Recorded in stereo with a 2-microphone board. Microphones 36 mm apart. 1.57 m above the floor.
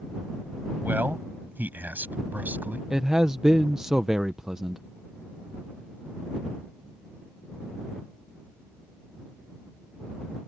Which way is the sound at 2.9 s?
15° right (ahead or behind).